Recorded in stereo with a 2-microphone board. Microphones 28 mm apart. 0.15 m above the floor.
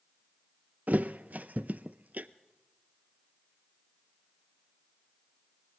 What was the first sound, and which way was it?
A thud, 75° right (ahead or behind).